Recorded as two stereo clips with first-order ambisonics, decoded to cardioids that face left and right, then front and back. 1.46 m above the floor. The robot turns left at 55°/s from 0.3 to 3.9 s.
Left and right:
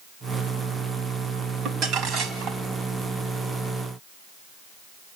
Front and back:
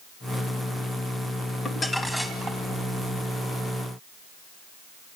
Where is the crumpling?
65° right, 1.7 m; by 2.6 s 115° right, 1.7 m.